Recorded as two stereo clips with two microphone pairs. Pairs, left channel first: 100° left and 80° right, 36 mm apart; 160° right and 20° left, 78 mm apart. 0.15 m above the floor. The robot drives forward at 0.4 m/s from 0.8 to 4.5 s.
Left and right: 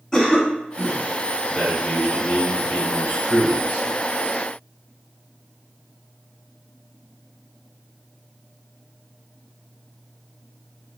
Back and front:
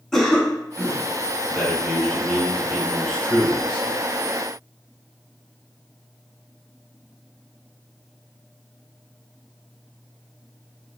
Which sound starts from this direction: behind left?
A cough, at 0.1 s.